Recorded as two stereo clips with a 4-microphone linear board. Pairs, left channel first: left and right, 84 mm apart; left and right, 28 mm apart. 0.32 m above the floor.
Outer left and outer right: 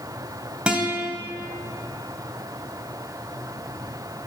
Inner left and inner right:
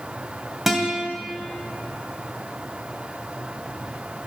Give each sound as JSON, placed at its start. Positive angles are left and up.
{"t": 0.7, "sound": "a guitar", "side_deg": -15, "distance_m": 2.0}